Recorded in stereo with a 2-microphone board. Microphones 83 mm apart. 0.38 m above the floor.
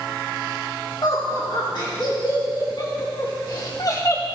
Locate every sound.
1.0 s laughter: 65° left (ahead or behind), 5 m; by 4.2 s 40° left (ahead or behind), 1.3 m